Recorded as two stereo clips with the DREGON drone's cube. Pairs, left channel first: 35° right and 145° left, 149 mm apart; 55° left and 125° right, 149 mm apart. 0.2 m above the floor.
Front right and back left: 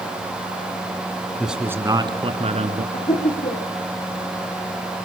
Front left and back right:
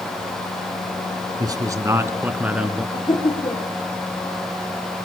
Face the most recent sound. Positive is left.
turn(degrees=5)